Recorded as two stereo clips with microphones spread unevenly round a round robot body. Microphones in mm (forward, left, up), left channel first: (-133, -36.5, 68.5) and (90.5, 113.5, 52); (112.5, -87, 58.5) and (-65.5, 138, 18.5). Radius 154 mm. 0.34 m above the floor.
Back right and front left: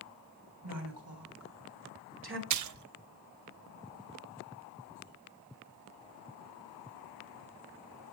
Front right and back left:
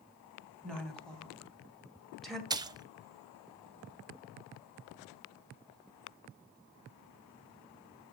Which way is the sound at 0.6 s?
40° left.